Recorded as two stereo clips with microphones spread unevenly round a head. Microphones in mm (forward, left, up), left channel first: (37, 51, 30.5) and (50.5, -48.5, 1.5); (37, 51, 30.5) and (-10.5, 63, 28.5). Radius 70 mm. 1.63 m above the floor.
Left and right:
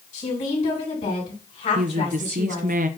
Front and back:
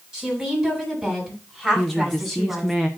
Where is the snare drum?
No snare drum in this recording.